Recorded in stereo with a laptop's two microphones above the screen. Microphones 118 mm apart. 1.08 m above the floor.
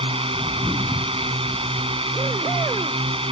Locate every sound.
0.0 s a drone: 50° right (ahead or behind)